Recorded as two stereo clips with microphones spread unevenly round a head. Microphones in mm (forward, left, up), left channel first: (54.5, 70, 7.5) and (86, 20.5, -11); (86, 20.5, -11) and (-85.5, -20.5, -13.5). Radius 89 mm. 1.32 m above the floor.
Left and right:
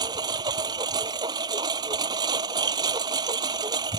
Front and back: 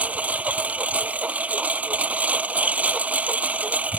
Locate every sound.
0.0 s a lawn mower: 85° right